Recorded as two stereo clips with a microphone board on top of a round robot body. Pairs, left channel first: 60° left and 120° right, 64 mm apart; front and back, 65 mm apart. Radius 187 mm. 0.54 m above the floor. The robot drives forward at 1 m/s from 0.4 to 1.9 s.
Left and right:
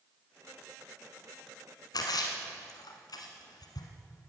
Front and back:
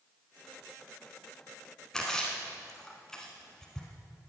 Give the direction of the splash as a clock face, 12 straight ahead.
9 o'clock.